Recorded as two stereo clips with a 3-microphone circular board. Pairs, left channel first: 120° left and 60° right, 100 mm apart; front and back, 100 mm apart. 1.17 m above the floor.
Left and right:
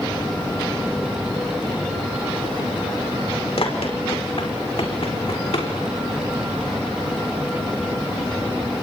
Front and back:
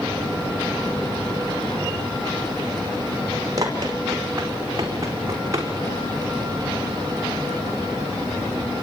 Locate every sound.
3.6 s running footsteps: 130° left, 5 m; by 5.7 s 125° left, 6.5 m